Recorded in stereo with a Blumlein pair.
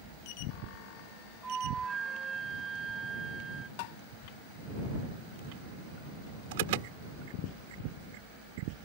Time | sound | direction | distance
1.4 | a flute | 15° right | ?
3.8 | tapping | 45° left | ?
6.5 | an alarm | 50° right | ?